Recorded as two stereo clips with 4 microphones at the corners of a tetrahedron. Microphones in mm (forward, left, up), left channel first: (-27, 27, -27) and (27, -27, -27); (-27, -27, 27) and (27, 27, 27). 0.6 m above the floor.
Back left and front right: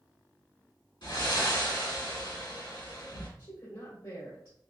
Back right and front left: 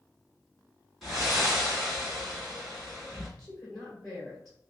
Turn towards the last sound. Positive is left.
turn(degrees=145)